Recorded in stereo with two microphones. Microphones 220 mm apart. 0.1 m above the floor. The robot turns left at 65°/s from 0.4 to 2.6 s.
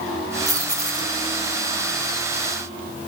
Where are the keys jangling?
30° left (ahead or behind), 1.8 m; by 3.1 s 5° left (ahead or behind), 1.8 m.